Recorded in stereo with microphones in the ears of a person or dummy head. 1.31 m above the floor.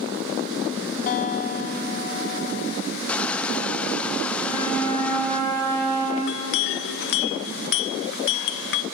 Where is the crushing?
10° left (ahead or behind), 0.5 m.